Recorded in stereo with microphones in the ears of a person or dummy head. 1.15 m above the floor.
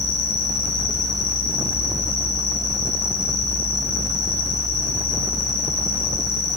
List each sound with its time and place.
0.0 s an insect: 55° left (ahead or behind), 8.5 m